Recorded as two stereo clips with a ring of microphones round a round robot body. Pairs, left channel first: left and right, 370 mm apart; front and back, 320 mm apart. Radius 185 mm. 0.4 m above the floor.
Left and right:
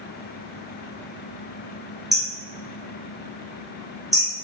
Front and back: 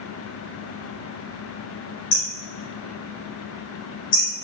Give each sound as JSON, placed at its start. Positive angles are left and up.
{"t": 2.1, "sound": "hammering", "azimuth_deg": 0, "distance_m": 1.5}